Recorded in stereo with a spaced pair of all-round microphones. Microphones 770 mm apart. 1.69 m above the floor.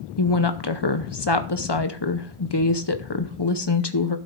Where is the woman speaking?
35° left (ahead or behind), 0.7 m.